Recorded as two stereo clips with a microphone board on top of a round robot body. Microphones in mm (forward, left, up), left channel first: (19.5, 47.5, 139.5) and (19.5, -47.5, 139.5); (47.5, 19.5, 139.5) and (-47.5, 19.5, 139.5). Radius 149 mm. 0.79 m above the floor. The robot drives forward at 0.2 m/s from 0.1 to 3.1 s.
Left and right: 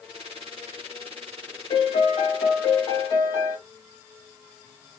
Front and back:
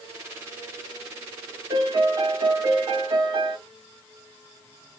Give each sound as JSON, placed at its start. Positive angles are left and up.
{"t": 1.7, "sound": "a piano", "azimuth_deg": 125, "distance_m": 1.1}